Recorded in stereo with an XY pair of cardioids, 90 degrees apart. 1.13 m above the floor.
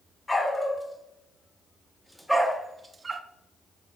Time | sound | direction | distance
0.3 | a dog barking | 20° left | 1.7 m